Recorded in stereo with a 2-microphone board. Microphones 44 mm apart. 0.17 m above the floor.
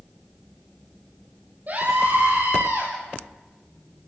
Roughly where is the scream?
Right.